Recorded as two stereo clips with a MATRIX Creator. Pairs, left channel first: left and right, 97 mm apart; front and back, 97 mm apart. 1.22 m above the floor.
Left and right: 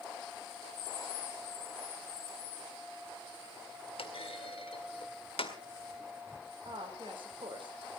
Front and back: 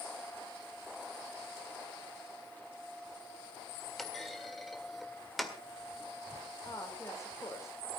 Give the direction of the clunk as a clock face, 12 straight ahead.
9 o'clock.